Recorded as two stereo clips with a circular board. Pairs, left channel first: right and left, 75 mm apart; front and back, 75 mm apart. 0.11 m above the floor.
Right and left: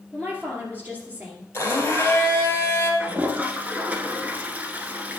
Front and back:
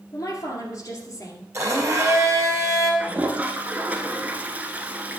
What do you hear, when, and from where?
0.1 s a woman speaking: 30° left, 2 m
1.5 s a blender: 145° right, 2.5 m
3.0 s a toilet flushing: 135° left, 0.8 m